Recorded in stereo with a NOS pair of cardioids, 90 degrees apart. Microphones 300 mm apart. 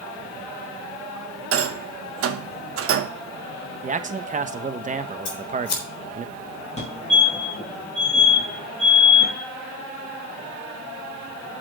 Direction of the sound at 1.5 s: 50° right.